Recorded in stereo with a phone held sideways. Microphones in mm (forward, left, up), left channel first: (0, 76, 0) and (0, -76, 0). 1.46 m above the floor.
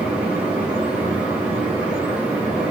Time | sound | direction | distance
0.0 | a fan | 10° right (ahead or behind) | 2.5 m